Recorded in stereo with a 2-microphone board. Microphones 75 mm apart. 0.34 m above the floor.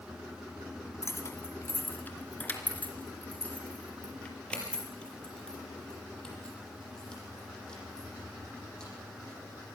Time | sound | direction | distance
1.0 | keys jangling | 40° left (ahead or behind) | 1.6 m